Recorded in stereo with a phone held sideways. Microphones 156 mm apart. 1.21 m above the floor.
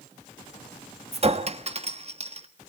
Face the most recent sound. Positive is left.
turn(degrees=-45)  # may be behind; listen again after turning